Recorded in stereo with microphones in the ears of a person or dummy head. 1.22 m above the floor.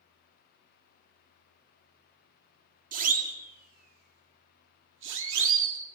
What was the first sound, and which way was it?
A siren, 45° right (ahead or behind).